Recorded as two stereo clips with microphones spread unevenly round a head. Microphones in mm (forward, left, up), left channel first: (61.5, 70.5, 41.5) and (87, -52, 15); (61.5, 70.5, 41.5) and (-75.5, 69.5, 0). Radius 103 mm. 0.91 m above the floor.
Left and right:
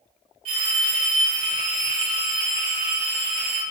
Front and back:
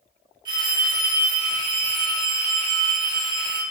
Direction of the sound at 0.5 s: 125° right.